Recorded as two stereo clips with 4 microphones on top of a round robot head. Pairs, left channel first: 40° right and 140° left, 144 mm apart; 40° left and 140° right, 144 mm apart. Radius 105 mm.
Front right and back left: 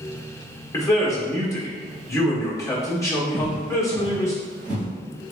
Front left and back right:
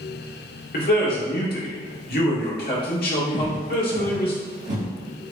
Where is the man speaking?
30° left, 1.6 m.